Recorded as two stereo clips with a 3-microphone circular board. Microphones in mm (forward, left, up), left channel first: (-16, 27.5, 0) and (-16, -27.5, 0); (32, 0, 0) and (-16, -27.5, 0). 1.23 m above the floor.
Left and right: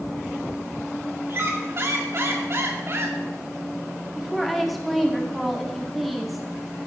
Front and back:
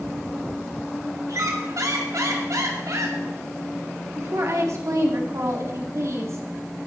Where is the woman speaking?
Straight behind, 2 m.